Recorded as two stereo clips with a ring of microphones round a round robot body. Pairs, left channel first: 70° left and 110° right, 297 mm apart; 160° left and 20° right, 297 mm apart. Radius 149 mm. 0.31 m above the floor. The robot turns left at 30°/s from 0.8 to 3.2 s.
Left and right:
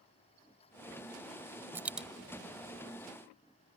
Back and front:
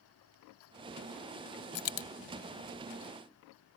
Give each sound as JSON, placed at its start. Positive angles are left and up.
{"t": 1.8, "sound": "a dropped coin", "azimuth_deg": 170}